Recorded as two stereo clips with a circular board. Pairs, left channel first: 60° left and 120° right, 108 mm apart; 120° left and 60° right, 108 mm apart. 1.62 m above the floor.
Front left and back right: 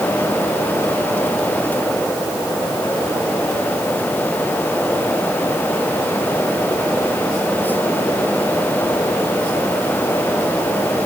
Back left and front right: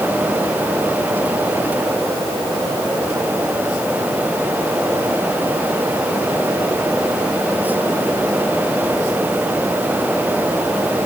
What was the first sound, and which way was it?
Only background noise.